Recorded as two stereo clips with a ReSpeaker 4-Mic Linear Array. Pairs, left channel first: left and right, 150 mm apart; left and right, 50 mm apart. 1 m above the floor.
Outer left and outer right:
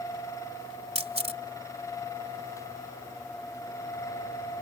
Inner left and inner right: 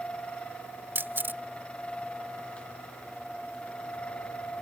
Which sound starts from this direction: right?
A camera shutter, at 0.9 s.